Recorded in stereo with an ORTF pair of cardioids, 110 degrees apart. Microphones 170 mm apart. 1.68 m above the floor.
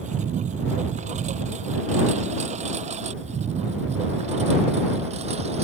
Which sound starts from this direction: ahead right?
A lawn mower, at 0.0 s.